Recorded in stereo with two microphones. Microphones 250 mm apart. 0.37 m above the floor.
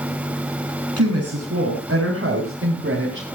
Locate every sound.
1.0 s a woman speaking: 70° right (ahead or behind), 4 m; by 3.3 s 45° right (ahead or behind), 4.5 m